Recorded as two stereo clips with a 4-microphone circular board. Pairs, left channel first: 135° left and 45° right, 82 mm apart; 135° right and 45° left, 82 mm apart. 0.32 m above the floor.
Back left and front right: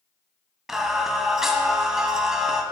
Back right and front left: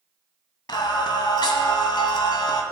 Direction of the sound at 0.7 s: 130° right.